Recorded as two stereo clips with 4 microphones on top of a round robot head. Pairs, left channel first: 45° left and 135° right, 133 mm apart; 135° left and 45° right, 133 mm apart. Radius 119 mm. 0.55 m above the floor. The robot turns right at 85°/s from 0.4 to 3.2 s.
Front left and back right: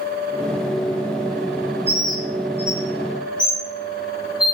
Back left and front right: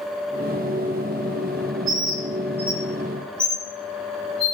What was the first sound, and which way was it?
A bird, 60° right.